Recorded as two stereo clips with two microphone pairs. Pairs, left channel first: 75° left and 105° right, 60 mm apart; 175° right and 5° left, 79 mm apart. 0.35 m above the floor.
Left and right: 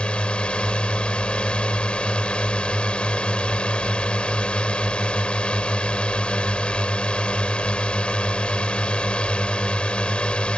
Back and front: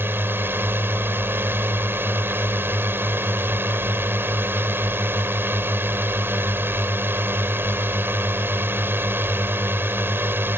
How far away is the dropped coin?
I don't hear a dropped coin.